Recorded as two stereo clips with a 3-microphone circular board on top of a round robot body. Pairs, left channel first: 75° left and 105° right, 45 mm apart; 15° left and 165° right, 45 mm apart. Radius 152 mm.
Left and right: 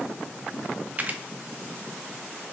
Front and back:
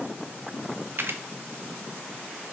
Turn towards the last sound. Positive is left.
turn(degrees=-155)